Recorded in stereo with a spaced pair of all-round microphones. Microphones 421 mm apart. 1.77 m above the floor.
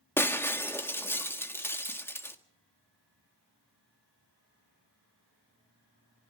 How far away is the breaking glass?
About 1.5 m.